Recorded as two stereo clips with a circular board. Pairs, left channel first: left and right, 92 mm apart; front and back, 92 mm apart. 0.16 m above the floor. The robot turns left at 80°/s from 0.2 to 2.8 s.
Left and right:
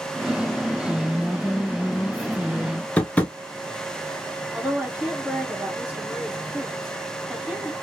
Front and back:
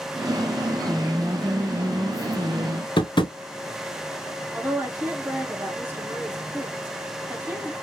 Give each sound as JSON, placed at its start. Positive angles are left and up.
{"t": 0.8, "sound": "a woman speaking", "azimuth_deg": -155, "distance_m": 1.3}
{"t": 3.0, "sound": "tapping", "azimuth_deg": 15, "distance_m": 0.6}
{"t": 4.5, "sound": "a woman speaking", "azimuth_deg": -150, "distance_m": 1.2}